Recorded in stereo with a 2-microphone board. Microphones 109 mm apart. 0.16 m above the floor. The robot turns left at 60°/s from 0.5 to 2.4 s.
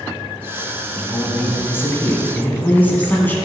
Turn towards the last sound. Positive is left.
turn(degrees=15)  # may be behind; listen again after turning